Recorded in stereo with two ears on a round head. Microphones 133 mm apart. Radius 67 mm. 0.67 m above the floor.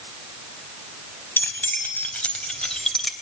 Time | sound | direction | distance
1.4 | keys jangling | 15° left (ahead or behind) | 3.5 m